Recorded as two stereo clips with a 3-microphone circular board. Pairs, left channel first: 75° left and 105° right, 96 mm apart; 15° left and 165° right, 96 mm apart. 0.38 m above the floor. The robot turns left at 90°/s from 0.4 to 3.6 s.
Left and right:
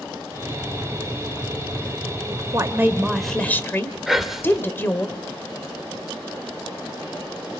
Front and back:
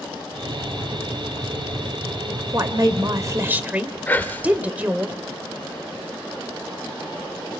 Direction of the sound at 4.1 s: 20° right.